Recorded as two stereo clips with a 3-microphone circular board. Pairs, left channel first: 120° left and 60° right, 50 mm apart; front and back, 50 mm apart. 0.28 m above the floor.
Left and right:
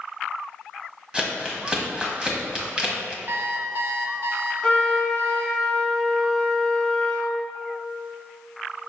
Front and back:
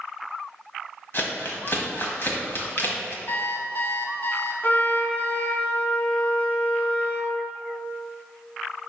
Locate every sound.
1.1 s crumpling: 5° left, 1.5 m
3.3 s an alarm clock: 35° right, 1.1 m
4.6 s a trumpet: 45° left, 1.1 m